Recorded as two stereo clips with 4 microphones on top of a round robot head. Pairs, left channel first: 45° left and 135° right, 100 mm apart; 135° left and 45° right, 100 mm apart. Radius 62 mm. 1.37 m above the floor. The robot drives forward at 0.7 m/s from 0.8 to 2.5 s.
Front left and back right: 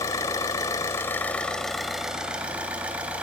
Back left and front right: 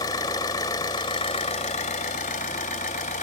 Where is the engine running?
100° left, 1.3 m; by 3.2 s 150° left, 1.9 m.